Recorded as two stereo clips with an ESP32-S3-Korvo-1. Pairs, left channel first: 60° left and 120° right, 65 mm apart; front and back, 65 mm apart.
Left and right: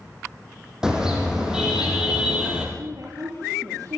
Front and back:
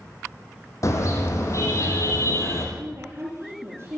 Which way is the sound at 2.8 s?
135° right.